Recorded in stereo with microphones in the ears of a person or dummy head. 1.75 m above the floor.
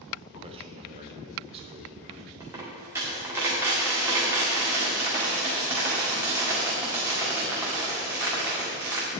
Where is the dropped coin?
15° right (ahead or behind), 1.8 m.